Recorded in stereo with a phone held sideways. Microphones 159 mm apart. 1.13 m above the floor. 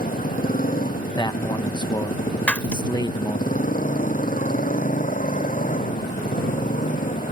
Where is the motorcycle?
60° left (ahead or behind); by 7.3 s 55° left (ahead or behind).